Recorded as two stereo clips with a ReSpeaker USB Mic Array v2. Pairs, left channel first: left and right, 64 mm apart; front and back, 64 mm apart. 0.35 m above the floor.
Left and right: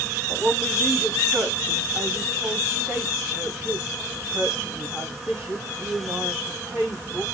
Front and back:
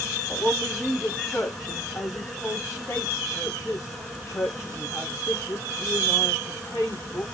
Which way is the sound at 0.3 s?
45° right.